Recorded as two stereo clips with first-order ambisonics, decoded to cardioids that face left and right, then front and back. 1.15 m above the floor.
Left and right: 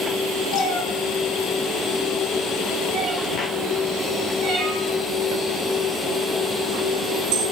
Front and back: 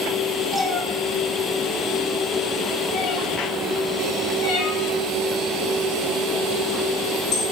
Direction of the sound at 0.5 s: 95° left.